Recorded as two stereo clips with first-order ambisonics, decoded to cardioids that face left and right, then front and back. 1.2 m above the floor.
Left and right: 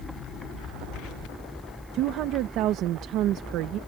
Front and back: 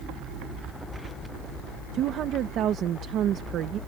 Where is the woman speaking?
130° right.